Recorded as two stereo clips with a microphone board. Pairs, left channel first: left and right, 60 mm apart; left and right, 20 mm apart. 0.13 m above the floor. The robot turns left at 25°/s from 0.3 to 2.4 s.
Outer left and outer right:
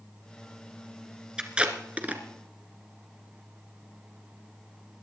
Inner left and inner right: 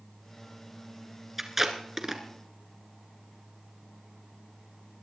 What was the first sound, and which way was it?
Tape being pulled, 15° right (ahead or behind).